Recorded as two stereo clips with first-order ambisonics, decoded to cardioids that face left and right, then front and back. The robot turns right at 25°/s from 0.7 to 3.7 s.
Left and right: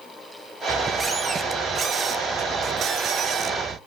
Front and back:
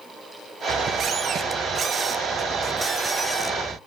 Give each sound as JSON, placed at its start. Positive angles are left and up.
{"t": 0.7, "sound": "a squeak", "azimuth_deg": -160, "distance_m": 1.3}